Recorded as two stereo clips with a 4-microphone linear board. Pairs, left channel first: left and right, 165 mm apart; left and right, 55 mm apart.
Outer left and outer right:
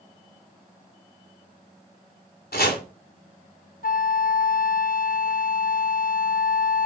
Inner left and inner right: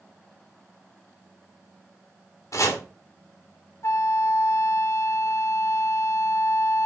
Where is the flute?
60° left (ahead or behind), 0.8 m.